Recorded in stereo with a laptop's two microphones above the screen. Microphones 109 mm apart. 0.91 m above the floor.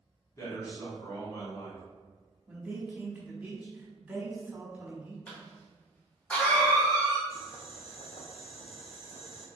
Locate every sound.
0.4 s a man speaking: 30° left (ahead or behind), 1.8 m
2.5 s a man speaking: 10° right (ahead or behind), 0.9 m
5.3 s a cough: 15° left (ahead or behind), 1.4 m
7.3 s boiling: 60° left (ahead or behind), 0.6 m